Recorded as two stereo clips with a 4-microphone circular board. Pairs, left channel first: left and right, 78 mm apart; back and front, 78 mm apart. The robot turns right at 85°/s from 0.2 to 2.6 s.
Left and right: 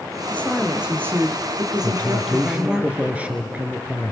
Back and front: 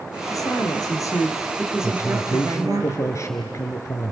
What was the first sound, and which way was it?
A woman speaking, 150° left.